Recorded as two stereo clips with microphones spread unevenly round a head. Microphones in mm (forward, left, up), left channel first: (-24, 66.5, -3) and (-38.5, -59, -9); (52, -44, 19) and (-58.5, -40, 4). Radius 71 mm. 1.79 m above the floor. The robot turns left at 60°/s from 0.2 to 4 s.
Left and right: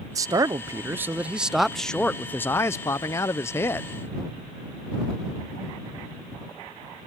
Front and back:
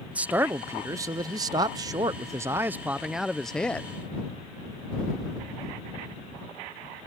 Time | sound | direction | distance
0.1 | a man speaking | 105° right | ?